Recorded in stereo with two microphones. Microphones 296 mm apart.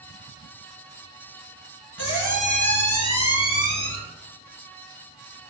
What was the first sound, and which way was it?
A squeak, 80° left.